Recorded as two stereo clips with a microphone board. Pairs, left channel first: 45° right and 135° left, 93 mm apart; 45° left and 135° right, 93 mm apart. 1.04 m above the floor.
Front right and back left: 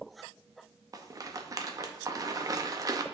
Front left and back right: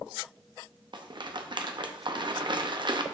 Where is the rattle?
170° right, 0.6 m.